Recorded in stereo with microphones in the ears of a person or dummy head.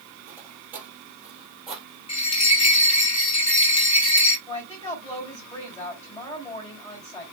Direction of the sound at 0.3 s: 10° right (ahead or behind).